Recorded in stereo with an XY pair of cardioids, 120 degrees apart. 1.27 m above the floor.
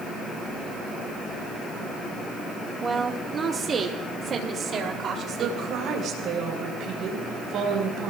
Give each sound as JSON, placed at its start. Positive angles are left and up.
{"t": 2.8, "sound": "a woman speaking", "azimuth_deg": -25, "distance_m": 2.0}
{"t": 5.4, "sound": "a woman speaking", "azimuth_deg": -60, "distance_m": 4.5}